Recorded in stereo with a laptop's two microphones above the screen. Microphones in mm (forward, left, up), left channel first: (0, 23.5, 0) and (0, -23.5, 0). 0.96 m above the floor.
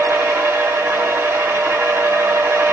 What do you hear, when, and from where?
0.0 s a machine running: 80° right, 1.8 m